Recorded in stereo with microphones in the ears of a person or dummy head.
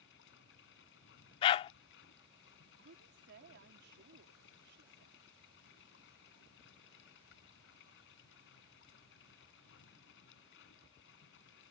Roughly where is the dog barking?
Left.